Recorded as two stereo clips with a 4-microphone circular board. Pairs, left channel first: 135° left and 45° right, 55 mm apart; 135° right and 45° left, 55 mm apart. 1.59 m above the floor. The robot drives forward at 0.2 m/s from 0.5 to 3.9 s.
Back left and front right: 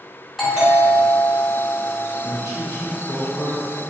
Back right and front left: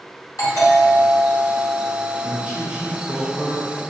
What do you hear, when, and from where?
0.4 s a doorbell: 130° right, 1.8 m; by 2.4 s 135° right, 2 m
2.2 s a man speaking: 110° left, 1.2 m; by 3.7 s 125° left, 1.3 m